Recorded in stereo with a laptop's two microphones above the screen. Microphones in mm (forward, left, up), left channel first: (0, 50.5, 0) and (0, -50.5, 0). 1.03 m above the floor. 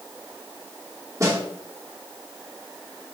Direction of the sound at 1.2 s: 30° right (ahead or behind).